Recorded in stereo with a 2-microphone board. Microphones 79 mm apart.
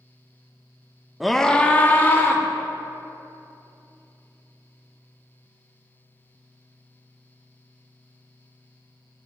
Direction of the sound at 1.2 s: 5° right (ahead or behind).